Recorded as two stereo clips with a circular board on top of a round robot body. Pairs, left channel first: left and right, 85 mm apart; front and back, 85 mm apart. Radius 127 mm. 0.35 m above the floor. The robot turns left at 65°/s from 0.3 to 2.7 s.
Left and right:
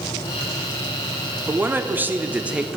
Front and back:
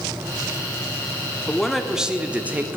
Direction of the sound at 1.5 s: 75° right.